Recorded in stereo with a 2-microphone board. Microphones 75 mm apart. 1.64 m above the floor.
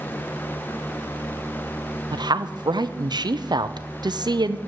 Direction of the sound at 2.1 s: 70° right (ahead or behind).